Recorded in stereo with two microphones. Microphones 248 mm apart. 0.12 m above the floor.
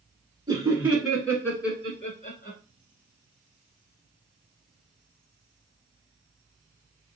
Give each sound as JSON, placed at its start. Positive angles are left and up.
{"t": 0.5, "sound": "laughter", "side_deg": -15, "distance_m": 1.3}